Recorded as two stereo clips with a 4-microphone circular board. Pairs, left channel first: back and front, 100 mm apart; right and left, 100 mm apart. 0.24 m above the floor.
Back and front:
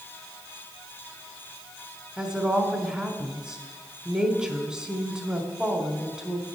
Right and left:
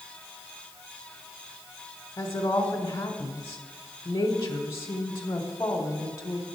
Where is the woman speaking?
75° right, 1.0 m.